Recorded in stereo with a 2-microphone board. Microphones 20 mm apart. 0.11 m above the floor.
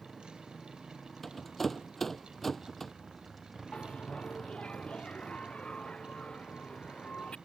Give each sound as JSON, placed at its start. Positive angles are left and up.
{"t": 0.0, "sound": "a motorcycle", "side_deg": 10}
{"t": 1.2, "sound": "a rattle", "side_deg": 15}
{"t": 3.7, "sound": "a bell", "side_deg": 75}